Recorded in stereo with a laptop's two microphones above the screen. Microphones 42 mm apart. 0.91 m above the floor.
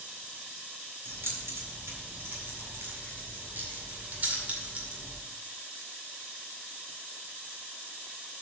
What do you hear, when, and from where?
1.1 s keys jangling: 70° right (ahead or behind), 3 m; by 5.2 s 20° right (ahead or behind), 1.8 m